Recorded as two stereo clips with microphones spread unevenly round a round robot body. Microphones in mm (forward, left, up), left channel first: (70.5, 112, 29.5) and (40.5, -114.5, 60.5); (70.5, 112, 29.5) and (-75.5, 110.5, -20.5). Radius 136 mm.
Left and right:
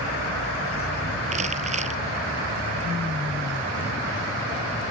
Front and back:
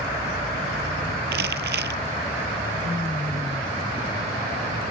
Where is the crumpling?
165° right.